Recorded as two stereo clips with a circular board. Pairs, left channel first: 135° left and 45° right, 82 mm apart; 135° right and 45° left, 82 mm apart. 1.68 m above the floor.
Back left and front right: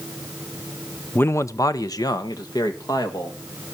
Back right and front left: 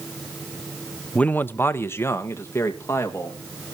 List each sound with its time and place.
1.1 s a man speaking: 165° left, 0.5 m